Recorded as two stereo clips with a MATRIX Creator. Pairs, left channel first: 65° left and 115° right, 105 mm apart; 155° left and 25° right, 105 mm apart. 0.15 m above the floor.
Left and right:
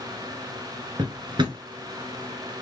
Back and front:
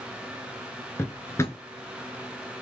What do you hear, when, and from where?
1.0 s a drawer: 145° right, 1.0 m